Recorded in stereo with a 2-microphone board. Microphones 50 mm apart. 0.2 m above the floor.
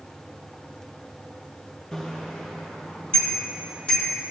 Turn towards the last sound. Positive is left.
turn(degrees=25)  # may be behind; listen again after turning